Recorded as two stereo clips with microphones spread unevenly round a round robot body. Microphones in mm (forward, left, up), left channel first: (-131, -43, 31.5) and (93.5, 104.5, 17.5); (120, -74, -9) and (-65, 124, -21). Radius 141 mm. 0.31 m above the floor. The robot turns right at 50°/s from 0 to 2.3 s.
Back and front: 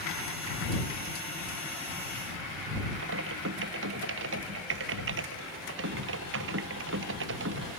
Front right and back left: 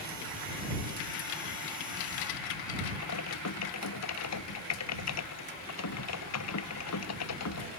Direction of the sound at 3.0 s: 20° right.